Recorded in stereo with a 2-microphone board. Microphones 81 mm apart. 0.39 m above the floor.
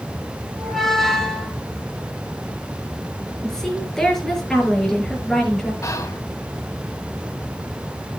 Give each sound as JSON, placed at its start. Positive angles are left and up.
{"t": 0.6, "sound": "a squeak", "side_deg": 5, "distance_m": 5.5}
{"t": 3.4, "sound": "a woman speaking", "side_deg": 5, "distance_m": 6.0}
{"t": 5.8, "sound": "whispering", "side_deg": 45, "distance_m": 2.0}